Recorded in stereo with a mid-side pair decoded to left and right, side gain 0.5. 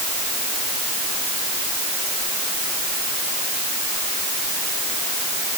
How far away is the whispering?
No whispering in this recording.